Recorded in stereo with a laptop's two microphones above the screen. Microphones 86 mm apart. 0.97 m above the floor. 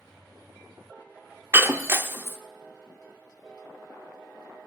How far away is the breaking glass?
About 0.6 m.